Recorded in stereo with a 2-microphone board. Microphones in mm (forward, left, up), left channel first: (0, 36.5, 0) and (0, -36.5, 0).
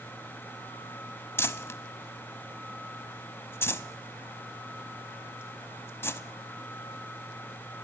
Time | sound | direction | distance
1.4 | crumpling | 35° left (ahead or behind) | 0.6 m